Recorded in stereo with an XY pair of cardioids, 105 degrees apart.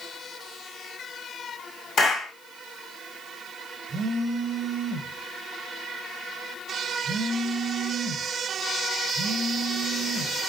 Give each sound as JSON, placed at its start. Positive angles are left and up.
{"t": 2.0, "sound": "a clap", "azimuth_deg": 60, "distance_m": 1.4}
{"t": 3.9, "sound": "a phone buzzing", "azimuth_deg": -35, "distance_m": 0.6}